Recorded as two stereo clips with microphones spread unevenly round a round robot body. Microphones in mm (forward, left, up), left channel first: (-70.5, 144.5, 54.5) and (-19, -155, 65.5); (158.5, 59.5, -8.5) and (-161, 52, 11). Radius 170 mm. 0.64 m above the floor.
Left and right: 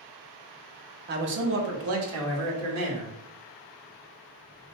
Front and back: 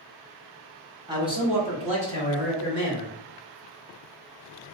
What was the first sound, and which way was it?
A man speaking, 105° right.